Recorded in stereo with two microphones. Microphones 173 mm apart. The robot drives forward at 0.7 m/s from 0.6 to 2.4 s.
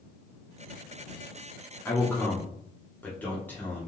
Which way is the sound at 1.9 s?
15° left (ahead or behind).